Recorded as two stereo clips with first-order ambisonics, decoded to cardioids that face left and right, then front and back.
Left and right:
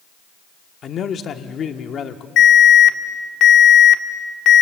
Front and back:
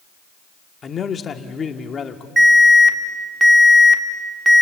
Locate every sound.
0.8 s a man speaking: 50° left, 1.0 m
2.4 s an alarm: 105° left, 1.3 m